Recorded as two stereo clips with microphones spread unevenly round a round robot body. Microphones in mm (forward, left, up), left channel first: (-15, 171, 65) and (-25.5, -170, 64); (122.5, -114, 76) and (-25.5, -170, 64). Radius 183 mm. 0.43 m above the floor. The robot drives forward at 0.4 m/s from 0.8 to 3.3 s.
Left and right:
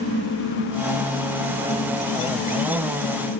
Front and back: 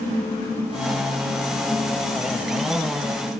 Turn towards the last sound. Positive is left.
No sound to turn to.